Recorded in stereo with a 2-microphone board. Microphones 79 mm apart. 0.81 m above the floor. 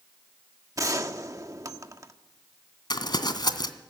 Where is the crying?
I don't hear crying.